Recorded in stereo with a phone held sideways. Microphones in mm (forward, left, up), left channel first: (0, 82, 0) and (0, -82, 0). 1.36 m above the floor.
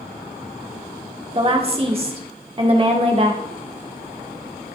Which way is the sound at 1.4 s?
35° right (ahead or behind).